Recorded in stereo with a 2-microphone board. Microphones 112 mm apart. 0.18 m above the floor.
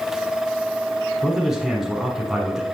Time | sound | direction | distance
1.2 | a man speaking | 5° right (ahead or behind) | 1.3 m